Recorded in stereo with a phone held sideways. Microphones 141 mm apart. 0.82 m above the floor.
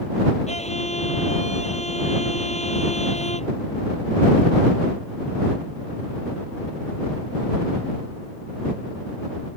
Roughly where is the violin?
Left.